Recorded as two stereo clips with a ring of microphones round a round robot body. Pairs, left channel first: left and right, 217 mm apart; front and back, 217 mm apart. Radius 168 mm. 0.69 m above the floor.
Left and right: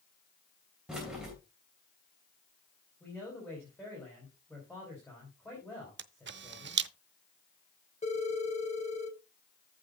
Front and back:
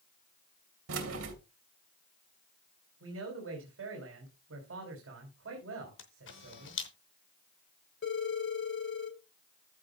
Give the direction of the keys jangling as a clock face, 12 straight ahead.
6 o'clock.